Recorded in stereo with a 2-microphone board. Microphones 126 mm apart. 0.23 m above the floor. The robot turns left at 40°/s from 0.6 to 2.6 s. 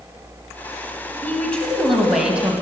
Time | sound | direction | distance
1.2 | a woman speaking | 30° left | 1.6 m